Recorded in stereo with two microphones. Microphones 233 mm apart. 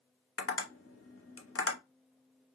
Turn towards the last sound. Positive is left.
turn(degrees=65)  # may be behind; listen again after turning